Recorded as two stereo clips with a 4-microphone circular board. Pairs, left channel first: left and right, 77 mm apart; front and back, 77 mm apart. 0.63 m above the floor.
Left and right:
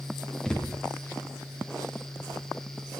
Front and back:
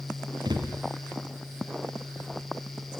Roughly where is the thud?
Behind.